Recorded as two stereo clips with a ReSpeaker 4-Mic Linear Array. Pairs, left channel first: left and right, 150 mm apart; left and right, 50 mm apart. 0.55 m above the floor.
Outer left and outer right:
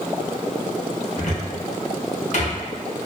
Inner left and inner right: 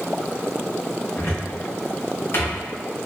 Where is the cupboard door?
50° left (ahead or behind), 0.7 m.